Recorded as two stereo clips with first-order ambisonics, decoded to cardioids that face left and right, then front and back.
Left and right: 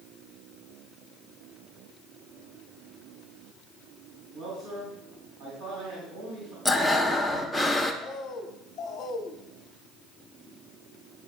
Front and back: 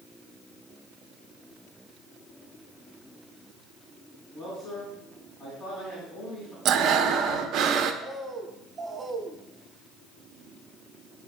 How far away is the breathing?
About 0.6 m.